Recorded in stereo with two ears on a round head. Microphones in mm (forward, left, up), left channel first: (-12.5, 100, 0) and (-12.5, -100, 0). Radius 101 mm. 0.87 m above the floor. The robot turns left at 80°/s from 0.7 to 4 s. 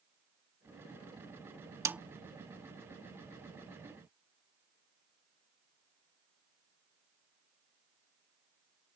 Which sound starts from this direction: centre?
A snare drum, at 1.9 s.